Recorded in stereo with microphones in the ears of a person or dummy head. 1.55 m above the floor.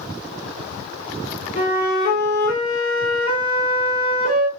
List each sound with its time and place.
1.6 s a flute: 25° left (ahead or behind), 1.5 m